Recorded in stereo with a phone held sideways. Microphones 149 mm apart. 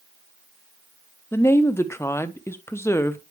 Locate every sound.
1.3 s a woman speaking: 15° left (ahead or behind), 1.0 m